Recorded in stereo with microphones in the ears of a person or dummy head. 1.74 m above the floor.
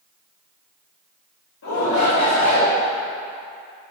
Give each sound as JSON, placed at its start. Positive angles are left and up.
{"t": 1.6, "sound": "a shout", "side_deg": 80, "distance_m": 2.5}